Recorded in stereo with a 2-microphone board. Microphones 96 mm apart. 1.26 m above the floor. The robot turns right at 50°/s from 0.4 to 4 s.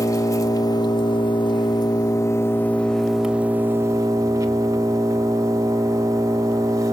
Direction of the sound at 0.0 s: 45° left.